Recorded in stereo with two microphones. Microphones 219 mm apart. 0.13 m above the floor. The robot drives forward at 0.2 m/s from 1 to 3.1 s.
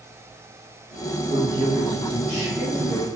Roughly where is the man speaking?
Centre.